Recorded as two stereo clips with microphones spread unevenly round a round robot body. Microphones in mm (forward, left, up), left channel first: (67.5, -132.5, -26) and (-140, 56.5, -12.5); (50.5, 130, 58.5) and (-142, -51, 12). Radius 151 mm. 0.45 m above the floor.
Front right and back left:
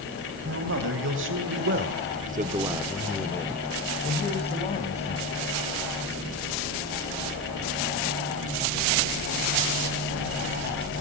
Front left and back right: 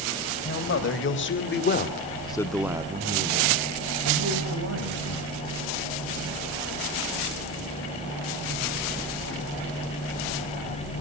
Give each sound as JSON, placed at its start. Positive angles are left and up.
{"t": 0.5, "sound": "a man speaking", "azimuth_deg": 85, "distance_m": 3.5}